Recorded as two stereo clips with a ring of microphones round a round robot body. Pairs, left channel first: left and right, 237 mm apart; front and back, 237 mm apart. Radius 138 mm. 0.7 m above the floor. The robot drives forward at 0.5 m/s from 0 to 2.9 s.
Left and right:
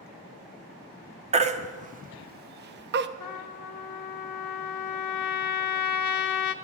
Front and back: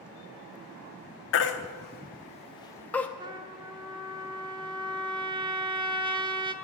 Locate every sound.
1.3 s a baby crying: 30° right, 1.1 m; by 3.1 s 80° right, 0.7 m
3.2 s a trumpet: 110° left, 0.9 m